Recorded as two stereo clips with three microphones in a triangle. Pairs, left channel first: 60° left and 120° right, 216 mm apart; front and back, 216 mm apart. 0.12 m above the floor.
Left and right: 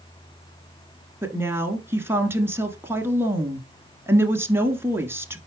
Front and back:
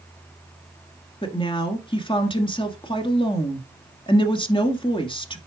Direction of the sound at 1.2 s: 50° right.